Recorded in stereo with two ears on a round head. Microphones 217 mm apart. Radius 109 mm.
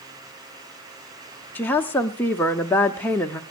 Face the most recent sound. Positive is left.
turn(degrees=10)  # may be behind; listen again after turning